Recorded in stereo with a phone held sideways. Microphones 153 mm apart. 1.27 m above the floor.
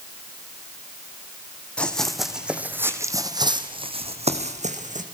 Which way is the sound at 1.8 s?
5° left (ahead or behind).